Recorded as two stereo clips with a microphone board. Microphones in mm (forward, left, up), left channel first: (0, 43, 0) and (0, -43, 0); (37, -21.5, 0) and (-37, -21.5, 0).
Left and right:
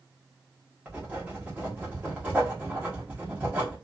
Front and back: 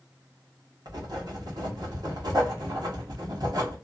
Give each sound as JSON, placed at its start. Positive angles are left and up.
{"t": 0.8, "sound": "writing", "azimuth_deg": -160, "distance_m": 1.1}